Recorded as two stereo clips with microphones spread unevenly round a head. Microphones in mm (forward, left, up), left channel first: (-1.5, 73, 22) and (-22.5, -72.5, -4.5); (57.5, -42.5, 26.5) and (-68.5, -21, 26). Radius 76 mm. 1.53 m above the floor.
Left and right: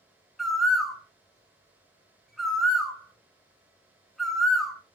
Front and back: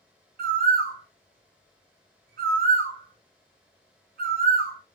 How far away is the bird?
About 0.5 m.